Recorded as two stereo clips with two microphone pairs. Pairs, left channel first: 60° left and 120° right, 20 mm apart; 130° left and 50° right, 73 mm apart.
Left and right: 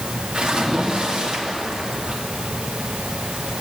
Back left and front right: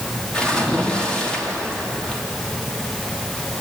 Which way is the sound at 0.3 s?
155° right.